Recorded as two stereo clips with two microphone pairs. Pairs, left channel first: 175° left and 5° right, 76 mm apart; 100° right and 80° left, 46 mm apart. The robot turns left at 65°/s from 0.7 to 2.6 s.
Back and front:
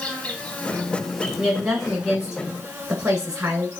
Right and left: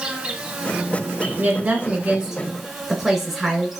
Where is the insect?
130° left, 1.1 m; by 3.8 s 5° left, 1.1 m.